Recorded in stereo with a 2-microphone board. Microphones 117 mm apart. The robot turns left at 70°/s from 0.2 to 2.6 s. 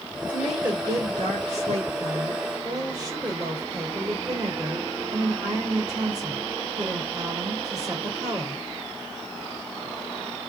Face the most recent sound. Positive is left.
turn(degrees=-150)